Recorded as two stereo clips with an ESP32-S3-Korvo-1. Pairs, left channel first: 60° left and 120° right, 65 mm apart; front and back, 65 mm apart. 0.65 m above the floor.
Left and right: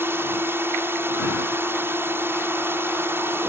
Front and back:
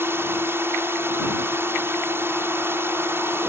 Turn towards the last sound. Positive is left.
turn(degrees=-150)